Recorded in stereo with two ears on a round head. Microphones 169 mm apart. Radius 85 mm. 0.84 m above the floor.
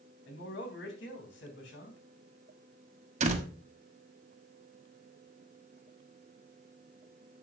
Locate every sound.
0.3 s a man speaking: 65° left (ahead or behind), 3 m
3.2 s a door slam: 40° right (ahead or behind), 1.3 m